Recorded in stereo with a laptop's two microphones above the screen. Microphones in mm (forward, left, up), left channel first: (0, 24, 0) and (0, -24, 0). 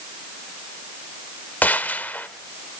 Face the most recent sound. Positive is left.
turn(degrees=40)  # may be behind; listen again after turning